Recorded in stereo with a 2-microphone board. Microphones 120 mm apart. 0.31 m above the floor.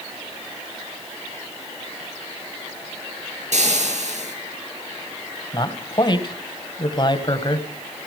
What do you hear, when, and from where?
3.5 s frying: 70° right (ahead or behind), 5.5 m
5.5 s a man speaking: 35° left (ahead or behind), 2 m